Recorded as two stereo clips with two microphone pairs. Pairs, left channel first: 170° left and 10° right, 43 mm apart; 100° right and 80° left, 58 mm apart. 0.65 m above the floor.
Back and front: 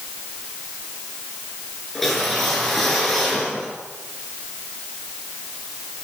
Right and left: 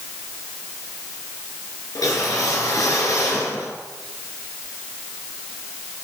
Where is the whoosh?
110° right, 5.5 m.